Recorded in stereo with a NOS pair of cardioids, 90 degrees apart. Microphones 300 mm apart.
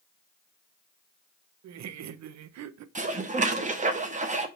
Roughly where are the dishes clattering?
Ahead right.